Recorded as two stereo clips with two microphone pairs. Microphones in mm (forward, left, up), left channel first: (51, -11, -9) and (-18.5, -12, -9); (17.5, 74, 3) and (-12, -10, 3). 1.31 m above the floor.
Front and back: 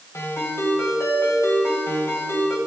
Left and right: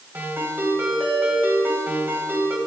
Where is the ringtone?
45° right, 4.5 m.